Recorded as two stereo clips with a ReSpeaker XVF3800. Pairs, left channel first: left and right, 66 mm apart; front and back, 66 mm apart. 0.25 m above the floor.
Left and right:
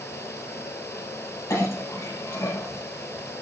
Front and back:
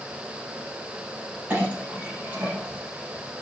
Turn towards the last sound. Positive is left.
turn(degrees=120)